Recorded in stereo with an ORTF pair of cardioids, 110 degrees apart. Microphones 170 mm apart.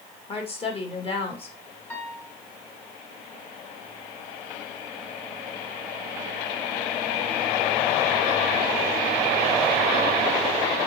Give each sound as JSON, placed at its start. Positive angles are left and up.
{"t": 0.3, "sound": "a woman speaking", "azimuth_deg": 35, "distance_m": 2.5}
{"t": 1.9, "sound": "a piano", "azimuth_deg": 10, "distance_m": 2.0}